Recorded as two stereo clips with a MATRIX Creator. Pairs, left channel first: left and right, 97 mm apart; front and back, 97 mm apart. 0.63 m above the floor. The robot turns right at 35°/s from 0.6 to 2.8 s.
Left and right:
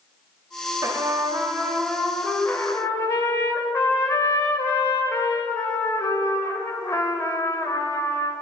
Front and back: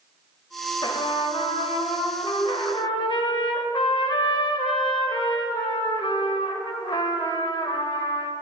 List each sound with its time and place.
0.8 s a trumpet: 40° right, 0.8 m; by 8.3 s 30° left, 0.8 m